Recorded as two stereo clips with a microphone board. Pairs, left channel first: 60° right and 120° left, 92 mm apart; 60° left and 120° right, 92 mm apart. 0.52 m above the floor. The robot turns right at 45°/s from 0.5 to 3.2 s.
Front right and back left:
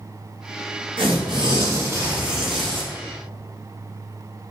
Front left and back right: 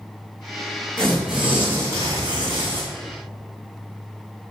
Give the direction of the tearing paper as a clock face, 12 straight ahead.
7 o'clock.